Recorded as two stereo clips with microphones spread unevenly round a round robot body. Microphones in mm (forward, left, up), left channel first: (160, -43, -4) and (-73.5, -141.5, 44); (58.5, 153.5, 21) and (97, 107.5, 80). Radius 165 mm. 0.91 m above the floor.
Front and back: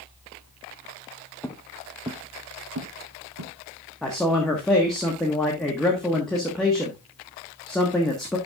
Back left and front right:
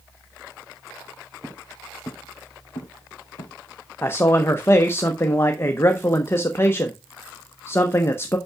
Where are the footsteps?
65° right, 1.6 m; by 3.5 s 175° left, 2.5 m.